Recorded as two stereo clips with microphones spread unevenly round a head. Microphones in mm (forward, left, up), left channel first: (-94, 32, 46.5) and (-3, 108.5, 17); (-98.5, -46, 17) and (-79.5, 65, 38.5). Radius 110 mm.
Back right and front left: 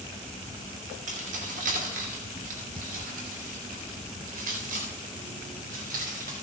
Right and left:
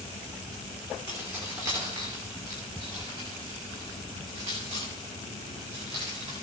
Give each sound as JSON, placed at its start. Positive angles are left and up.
{"t": 1.1, "sound": "keys jangling", "azimuth_deg": 0, "distance_m": 2.5}